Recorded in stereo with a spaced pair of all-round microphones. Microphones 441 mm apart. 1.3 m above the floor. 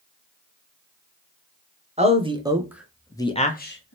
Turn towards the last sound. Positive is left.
turn(degrees=30)  # may be behind; listen again after turning